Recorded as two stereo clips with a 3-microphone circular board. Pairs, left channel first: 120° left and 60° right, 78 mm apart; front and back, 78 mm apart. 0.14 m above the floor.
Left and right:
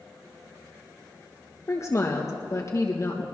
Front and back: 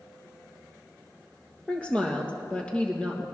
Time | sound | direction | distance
1.7 | a woman speaking | 75° left | 3 m